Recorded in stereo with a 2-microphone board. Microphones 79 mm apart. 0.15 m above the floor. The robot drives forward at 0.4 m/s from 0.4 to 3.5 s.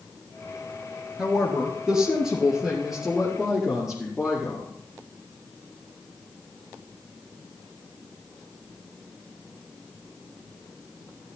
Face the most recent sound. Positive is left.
turn(degrees=-5)  # may be behind; listen again after turning